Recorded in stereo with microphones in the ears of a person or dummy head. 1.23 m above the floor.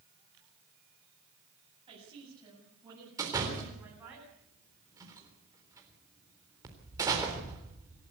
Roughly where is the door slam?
Centre.